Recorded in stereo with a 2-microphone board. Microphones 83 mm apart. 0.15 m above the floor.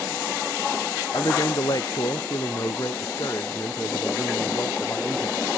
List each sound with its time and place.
1.1 s a man speaking: 55° left (ahead or behind); by 5.5 s 30° left (ahead or behind)